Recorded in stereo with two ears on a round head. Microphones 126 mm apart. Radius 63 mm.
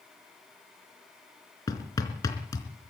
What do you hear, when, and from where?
1.7 s hammering: 25° left (ahead or behind), 3.5 m